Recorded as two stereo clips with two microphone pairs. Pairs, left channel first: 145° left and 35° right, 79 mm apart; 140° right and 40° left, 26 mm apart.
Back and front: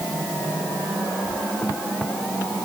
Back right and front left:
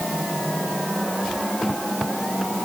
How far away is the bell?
No bell in this recording.